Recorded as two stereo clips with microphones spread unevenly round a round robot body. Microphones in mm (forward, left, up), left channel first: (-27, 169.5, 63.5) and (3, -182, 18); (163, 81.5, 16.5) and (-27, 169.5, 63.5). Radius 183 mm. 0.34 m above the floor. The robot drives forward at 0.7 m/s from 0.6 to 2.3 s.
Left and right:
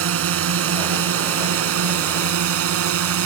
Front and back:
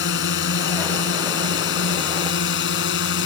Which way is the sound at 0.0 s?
40° right.